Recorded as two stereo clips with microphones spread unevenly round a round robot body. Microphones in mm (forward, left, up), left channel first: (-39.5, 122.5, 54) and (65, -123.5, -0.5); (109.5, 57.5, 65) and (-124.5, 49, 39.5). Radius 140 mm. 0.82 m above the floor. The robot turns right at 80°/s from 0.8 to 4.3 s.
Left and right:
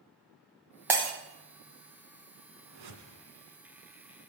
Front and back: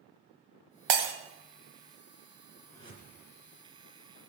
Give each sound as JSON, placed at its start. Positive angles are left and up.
{"t": 0.9, "sound": "breaking glass", "azimuth_deg": -155, "distance_m": 1.4}
{"t": 2.6, "sound": "a whoosh", "azimuth_deg": -85, "distance_m": 2.0}